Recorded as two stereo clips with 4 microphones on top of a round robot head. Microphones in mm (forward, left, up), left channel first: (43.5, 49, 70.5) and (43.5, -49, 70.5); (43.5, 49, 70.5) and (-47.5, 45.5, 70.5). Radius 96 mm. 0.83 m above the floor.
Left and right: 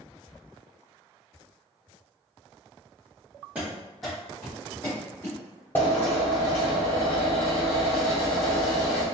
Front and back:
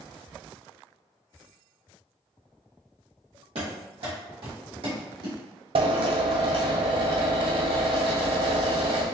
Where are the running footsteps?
170° right, 1.6 m; by 5.4 s 155° left, 2 m.